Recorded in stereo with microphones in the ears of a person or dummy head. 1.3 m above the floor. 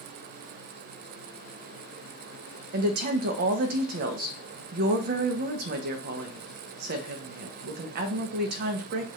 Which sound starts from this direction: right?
A woman speaking, at 2.7 s.